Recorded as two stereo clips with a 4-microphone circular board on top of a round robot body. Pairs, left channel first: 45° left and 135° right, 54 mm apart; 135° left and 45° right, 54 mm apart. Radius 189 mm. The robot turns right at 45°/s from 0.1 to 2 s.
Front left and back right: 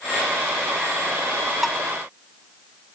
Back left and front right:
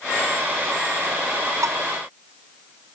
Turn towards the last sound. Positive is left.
turn(degrees=-30)